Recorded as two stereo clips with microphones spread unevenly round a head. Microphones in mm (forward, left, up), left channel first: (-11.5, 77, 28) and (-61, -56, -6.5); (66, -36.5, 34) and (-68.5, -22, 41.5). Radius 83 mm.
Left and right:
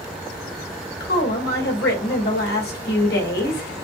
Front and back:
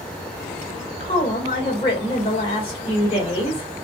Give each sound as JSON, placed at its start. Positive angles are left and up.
{"t": 1.0, "sound": "a woman speaking", "azimuth_deg": 50, "distance_m": 1.9}